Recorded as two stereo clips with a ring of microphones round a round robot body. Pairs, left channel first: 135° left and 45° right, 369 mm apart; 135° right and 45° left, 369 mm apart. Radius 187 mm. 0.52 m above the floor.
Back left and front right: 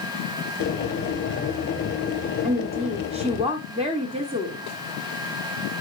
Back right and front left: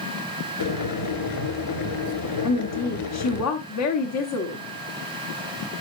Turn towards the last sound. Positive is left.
turn(degrees=-115)